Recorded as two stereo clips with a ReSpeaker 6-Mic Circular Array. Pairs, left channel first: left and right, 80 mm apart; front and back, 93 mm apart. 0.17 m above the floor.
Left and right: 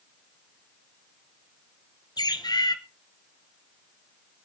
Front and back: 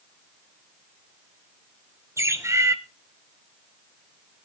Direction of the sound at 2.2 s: 120° left.